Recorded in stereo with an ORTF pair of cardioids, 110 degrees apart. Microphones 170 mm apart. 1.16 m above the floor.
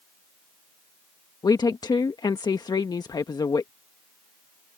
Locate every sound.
1.4 s a woman speaking: 25° left